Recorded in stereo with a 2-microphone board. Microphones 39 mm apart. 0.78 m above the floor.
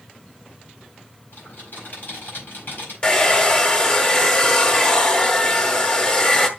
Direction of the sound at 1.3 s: 45° left (ahead or behind).